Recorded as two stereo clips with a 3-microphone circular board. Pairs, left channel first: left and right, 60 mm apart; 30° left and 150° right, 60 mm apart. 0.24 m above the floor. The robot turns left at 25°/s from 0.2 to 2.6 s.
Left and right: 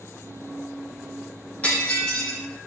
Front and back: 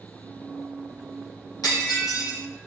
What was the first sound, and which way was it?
Breaking glass, 25° left.